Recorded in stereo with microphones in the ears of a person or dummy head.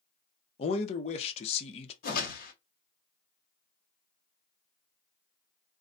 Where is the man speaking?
30° left (ahead or behind), 0.6 m.